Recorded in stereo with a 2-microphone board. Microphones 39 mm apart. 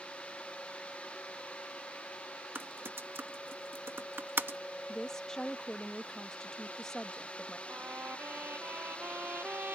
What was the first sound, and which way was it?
Typing on a keyboard, 80° right.